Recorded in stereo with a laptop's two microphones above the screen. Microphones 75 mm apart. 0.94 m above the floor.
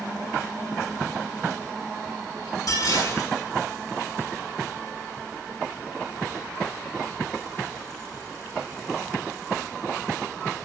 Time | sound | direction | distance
2.7 | dishes clattering | 55° left (ahead or behind) | 7 m